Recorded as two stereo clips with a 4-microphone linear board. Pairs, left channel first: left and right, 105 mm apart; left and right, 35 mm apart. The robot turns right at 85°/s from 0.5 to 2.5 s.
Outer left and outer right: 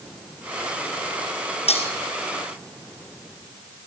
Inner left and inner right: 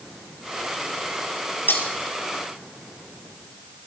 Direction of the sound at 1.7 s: 80° left.